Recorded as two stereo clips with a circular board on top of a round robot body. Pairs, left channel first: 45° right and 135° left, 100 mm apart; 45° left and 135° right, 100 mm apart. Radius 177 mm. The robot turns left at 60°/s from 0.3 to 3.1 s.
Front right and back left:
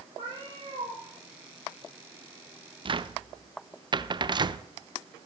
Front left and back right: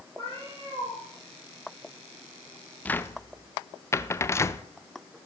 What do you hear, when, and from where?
0.2 s a cat meowing: 175° right, 6 m; by 1.0 s 145° left, 6 m
2.9 s a cupboard door: 120° left, 0.7 m; by 4.7 s 105° left, 0.7 m